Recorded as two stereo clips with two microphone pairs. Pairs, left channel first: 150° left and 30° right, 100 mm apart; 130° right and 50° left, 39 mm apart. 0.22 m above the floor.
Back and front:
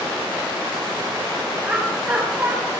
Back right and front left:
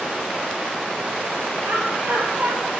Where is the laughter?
40° left, 4.5 m.